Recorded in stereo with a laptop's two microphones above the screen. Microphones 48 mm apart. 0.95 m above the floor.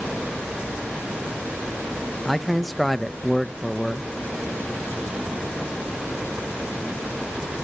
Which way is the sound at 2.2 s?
Centre (ahead or behind).